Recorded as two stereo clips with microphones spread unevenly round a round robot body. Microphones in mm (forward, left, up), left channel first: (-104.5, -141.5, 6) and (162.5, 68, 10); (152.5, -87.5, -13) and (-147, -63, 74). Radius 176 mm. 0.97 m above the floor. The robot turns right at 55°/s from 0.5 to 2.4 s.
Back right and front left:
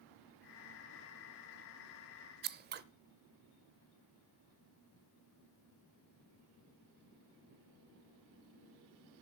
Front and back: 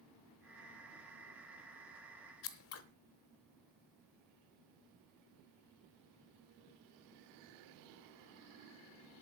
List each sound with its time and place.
2.4 s scissors: 30° left, 0.7 m